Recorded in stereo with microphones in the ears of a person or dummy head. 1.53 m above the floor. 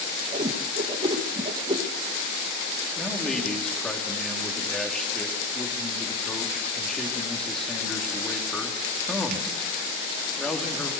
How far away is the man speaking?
About 3 m.